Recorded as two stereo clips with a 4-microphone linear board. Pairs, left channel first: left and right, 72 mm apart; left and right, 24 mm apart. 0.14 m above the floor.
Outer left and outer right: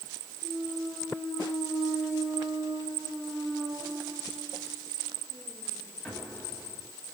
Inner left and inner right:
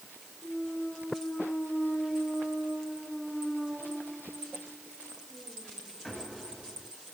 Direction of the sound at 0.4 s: 5° left (ahead or behind).